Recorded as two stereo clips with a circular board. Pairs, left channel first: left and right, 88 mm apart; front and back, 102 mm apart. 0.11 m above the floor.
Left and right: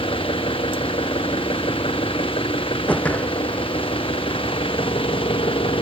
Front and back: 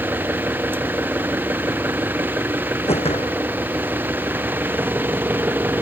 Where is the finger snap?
No finger snap in this recording.